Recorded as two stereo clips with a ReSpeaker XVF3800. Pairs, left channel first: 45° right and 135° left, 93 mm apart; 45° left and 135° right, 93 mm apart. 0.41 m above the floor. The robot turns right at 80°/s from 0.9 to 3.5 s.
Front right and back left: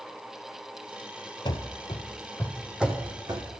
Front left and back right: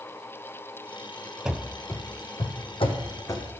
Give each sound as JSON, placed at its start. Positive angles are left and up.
{"t": 1.4, "sound": "running footsteps", "azimuth_deg": -60, "distance_m": 0.6}